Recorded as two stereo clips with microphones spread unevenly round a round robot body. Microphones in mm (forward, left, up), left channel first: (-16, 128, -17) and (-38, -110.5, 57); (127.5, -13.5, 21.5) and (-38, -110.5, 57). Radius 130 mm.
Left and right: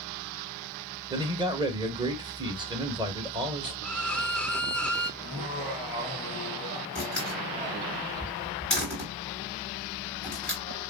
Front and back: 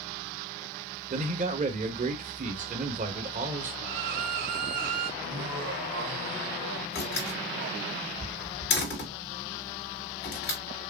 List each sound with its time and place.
1.1 s a man speaking: straight behind, 1.5 m
3.8 s a violin: 160° left, 0.7 m
5.2 s laughter: 175° right, 2 m
7.0 s a door slam: straight ahead, 4.5 m